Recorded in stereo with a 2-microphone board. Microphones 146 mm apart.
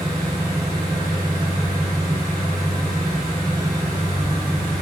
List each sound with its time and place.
0.0 s an engine running: 20° left (ahead or behind), 1.8 m